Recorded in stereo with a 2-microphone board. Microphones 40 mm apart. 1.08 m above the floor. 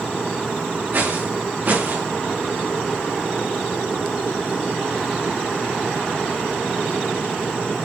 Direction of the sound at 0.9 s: 45° right (ahead or behind).